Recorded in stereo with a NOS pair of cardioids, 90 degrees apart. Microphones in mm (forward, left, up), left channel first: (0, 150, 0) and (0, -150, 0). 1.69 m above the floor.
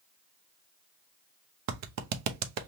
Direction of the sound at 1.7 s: 65° right.